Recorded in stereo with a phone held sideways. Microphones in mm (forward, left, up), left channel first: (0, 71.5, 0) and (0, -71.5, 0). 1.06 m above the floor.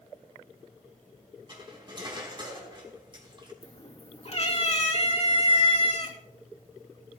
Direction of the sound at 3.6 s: 50° left (ahead or behind).